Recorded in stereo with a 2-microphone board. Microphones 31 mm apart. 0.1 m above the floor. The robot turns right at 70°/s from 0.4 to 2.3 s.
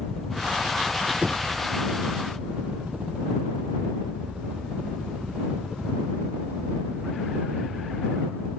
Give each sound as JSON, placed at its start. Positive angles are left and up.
{"t": 0.0, "sound": "a helicopter", "side_deg": 5}
{"t": 1.2, "sound": "knocking", "side_deg": -40}